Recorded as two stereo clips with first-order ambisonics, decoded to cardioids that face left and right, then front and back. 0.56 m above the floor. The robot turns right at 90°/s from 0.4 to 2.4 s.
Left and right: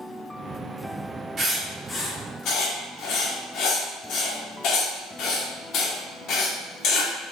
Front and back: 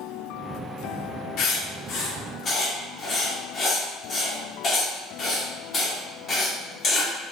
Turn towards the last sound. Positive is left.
turn(degrees=60)